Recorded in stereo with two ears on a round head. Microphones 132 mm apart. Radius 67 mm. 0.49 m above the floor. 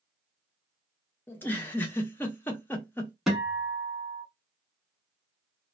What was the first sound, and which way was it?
A giggle, 15° left (ahead or behind).